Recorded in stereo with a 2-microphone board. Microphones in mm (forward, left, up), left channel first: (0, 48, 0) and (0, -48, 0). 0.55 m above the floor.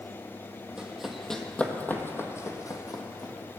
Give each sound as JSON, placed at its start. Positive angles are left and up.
{"t": 0.8, "sound": "running footsteps", "side_deg": -10, "distance_m": 1.2}